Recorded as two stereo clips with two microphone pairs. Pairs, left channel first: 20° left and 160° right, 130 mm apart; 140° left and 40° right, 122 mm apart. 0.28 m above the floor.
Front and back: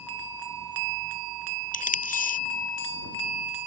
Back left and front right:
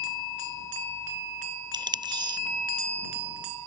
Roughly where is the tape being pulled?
Ahead.